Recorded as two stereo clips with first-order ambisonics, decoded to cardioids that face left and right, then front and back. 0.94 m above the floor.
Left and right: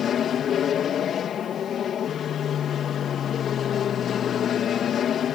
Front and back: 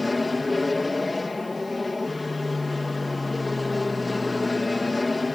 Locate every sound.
0.0 s an aircraft: 70° left